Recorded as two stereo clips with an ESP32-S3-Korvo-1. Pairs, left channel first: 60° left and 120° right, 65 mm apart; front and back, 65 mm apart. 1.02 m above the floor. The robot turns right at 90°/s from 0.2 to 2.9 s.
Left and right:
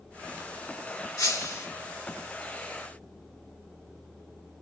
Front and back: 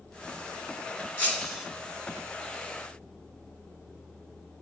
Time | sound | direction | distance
1.2 | breaking glass | 60° left | 3.5 m